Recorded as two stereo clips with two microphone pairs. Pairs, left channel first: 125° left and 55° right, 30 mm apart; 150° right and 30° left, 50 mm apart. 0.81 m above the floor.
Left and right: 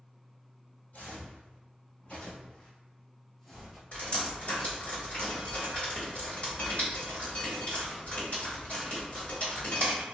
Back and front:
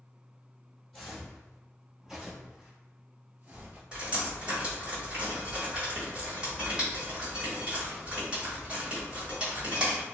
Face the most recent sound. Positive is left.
turn(degrees=95)